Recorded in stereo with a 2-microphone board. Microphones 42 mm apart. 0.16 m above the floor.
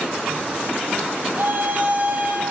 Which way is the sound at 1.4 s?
55° right (ahead or behind).